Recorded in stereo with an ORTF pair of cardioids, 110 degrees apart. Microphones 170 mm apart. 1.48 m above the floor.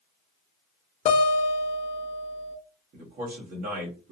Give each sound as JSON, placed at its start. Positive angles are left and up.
{"t": 1.1, "sound": "a guitar", "azimuth_deg": 40, "distance_m": 0.9}
{"t": 2.9, "sound": "a man speaking", "azimuth_deg": -60, "distance_m": 1.8}